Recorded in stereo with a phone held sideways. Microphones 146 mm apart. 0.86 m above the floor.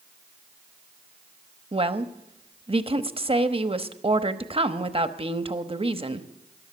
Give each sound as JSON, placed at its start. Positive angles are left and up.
{"t": 1.7, "sound": "a woman speaking", "side_deg": -40, "distance_m": 0.9}